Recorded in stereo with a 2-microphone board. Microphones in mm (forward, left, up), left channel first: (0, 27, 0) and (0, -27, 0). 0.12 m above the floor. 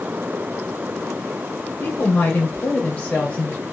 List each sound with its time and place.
1.8 s a woman speaking: 30° left (ahead or behind), 1.5 m; by 3.6 s 20° left (ahead or behind), 2.5 m